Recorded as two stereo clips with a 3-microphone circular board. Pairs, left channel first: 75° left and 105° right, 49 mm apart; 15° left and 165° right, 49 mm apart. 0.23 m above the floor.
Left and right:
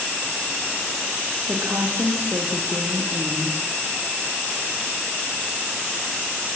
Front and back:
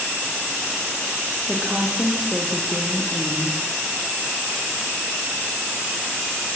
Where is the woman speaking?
90° right, 8 m.